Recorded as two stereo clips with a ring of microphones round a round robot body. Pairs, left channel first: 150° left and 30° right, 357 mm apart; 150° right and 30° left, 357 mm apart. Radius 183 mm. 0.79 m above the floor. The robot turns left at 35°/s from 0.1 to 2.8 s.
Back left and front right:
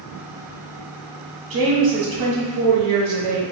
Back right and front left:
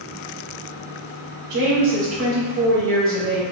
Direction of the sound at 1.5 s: 15° left.